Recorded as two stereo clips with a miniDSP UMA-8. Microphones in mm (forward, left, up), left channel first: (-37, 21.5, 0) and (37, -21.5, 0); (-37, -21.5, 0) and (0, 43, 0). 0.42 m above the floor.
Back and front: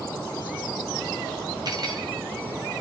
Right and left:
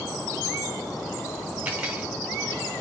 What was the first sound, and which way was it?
Cutlery clinking, straight ahead.